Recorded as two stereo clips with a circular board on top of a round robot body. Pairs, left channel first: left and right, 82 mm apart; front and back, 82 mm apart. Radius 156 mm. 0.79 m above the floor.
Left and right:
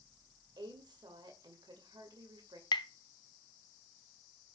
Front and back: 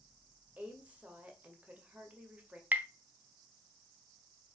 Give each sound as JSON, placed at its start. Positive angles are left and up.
{"t": 0.6, "sound": "a woman speaking", "azimuth_deg": -105, "distance_m": 2.0}
{"t": 2.7, "sound": "tapping", "azimuth_deg": 110, "distance_m": 0.7}